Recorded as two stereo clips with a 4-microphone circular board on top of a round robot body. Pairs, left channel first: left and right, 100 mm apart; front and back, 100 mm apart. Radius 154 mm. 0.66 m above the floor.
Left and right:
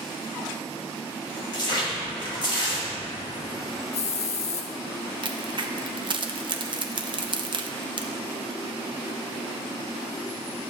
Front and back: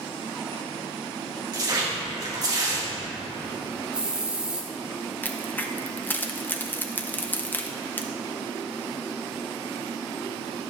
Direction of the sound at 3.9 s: 100° left.